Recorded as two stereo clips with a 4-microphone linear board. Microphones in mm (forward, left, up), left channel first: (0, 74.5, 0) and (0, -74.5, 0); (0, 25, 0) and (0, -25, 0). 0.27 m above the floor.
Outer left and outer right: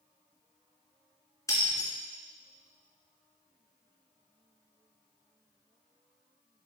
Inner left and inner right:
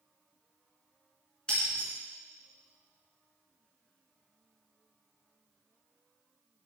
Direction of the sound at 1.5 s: 20° left (ahead or behind).